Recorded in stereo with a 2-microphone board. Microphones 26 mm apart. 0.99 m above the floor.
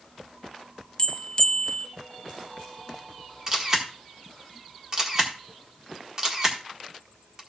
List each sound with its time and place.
1.0 s a bell: 30° left (ahead or behind), 0.6 m
3.5 s a camera shutter: 30° right (ahead or behind), 1.4 m